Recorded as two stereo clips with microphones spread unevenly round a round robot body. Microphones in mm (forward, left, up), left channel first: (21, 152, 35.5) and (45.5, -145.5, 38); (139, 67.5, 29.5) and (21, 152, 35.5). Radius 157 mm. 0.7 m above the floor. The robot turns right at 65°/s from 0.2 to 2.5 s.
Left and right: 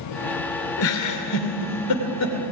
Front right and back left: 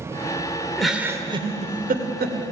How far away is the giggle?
About 2.5 m.